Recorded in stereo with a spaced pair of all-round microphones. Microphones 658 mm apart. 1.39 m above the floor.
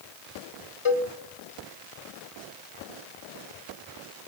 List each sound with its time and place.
0.8 s a cowbell: 45° left (ahead or behind), 1.5 m